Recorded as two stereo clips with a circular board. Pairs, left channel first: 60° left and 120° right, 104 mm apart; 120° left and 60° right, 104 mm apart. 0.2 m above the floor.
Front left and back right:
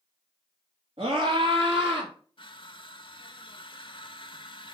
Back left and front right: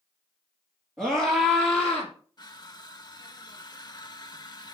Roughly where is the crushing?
Left.